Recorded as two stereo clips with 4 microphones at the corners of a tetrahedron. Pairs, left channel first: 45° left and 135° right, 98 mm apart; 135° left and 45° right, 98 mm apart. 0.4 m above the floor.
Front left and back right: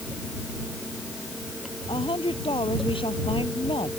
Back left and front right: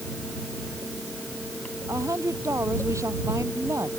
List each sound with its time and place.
1.9 s a woman speaking: 15° left